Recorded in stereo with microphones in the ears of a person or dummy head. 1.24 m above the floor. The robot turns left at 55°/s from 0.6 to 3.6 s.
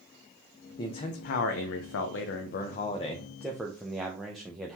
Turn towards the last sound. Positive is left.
turn(degrees=-5)